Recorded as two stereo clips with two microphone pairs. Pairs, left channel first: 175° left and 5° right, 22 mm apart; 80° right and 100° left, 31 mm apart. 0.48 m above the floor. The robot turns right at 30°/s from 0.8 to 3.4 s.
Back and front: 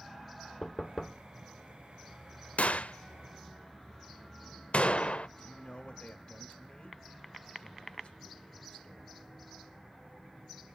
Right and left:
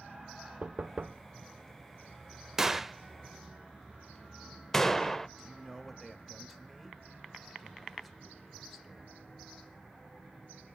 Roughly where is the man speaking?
Behind.